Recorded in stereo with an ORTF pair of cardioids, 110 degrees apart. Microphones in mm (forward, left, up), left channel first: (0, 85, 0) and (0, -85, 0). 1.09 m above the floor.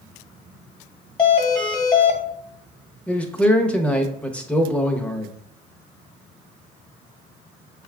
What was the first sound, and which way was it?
A doorbell, 30° left.